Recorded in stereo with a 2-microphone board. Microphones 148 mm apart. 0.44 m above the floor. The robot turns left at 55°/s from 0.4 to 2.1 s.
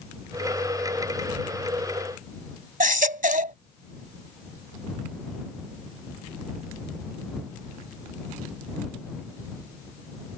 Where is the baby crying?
65° right (ahead or behind).